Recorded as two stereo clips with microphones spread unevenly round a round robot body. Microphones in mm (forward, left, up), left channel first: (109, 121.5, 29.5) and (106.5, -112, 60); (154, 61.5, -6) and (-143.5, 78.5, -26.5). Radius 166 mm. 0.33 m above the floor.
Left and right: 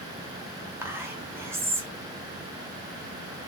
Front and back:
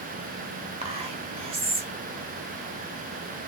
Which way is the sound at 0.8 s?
175° right.